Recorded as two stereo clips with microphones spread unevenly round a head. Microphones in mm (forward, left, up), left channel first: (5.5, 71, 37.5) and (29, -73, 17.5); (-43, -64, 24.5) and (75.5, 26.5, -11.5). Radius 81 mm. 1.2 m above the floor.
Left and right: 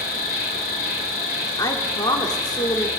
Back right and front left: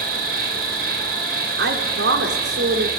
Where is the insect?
75° left, 3.5 m.